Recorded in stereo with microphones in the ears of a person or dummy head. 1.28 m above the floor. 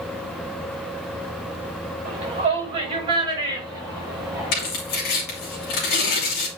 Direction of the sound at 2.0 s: 35° right (ahead or behind).